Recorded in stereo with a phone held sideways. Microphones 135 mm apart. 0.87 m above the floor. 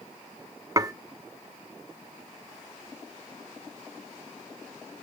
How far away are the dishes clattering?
About 0.7 m.